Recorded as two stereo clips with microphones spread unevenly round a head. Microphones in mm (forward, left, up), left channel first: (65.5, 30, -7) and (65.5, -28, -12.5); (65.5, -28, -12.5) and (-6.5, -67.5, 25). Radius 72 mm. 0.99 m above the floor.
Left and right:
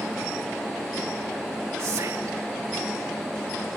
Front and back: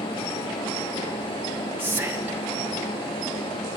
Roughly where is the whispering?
Right.